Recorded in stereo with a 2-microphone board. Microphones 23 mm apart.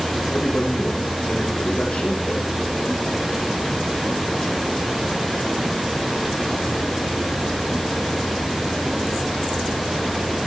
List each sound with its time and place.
0.3 s a man speaking: 70° left (ahead or behind), 6 m